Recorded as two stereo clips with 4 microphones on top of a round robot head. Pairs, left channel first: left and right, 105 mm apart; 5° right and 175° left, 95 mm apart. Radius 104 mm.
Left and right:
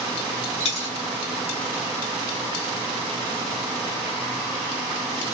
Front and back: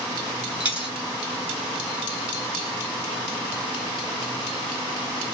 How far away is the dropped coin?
About 2 m.